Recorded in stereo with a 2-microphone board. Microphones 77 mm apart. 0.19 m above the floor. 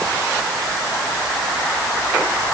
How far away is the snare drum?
I don't hear a snare drum.